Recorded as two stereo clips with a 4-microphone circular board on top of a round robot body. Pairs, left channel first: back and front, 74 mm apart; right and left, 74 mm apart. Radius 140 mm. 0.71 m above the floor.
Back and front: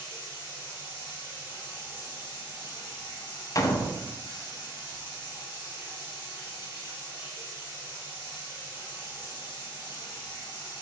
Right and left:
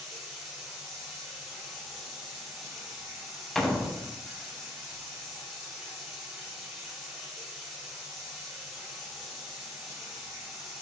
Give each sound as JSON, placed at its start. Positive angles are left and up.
{"t": 0.0, "sound": "running water", "azimuth_deg": 180, "distance_m": 1.2}
{"t": 3.5, "sound": "a door slam", "azimuth_deg": -175, "distance_m": 0.6}